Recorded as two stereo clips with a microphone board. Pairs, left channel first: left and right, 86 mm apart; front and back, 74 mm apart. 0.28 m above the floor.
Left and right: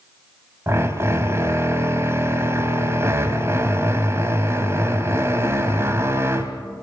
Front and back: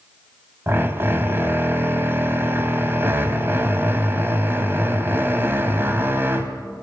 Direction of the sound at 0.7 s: 135° right.